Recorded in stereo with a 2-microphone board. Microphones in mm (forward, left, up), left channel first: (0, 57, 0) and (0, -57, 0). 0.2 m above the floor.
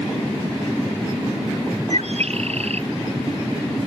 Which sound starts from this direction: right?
A bird, at 1.9 s.